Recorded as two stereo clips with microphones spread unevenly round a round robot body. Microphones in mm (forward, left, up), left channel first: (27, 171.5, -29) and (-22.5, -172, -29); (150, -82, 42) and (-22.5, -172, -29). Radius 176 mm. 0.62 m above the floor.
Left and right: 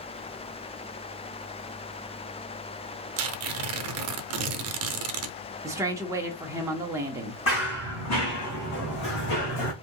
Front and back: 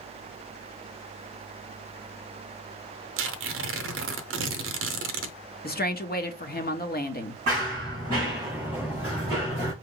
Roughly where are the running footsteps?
Behind left.